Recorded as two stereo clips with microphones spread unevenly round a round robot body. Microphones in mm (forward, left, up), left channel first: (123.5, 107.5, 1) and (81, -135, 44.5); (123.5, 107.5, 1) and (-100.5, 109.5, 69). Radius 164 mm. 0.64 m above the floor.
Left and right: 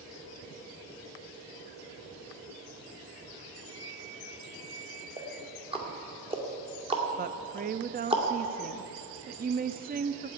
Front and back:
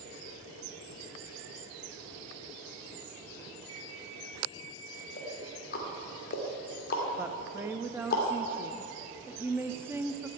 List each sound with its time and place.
3.7 s an alarm clock: 115° left, 7 m
5.2 s ticking: 30° right, 2 m
7.2 s a woman speaking: 75° right, 0.6 m